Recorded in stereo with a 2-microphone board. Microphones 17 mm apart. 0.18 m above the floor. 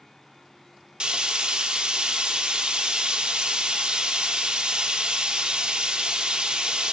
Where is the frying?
70° right (ahead or behind), 1.9 m.